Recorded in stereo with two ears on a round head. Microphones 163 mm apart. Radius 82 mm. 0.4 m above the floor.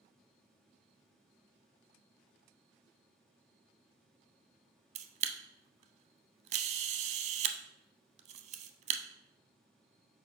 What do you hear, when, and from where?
5.0 s a camera shutter: 35° right (ahead or behind), 0.6 m